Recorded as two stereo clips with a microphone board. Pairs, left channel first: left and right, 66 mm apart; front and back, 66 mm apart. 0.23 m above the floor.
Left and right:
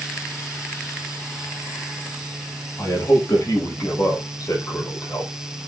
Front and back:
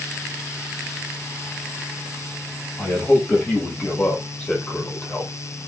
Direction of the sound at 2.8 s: 70° left.